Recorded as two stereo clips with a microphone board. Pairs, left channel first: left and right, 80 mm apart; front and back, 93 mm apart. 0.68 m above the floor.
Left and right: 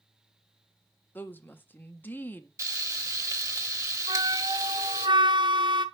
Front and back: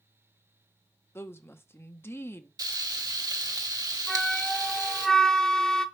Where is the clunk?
I don't hear a clunk.